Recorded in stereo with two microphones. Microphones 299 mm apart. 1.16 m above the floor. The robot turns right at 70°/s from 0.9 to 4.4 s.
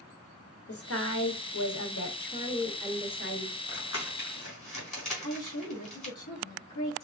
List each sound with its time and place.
0.7 s a woman speaking: 50° left, 1.0 m; by 3.5 s 125° right, 1.0 m
3.7 s crumpling: 40° left (ahead or behind), 3.5 m; by 6.1 s 80° left, 3.5 m
5.2 s a woman speaking: 80° left, 1.9 m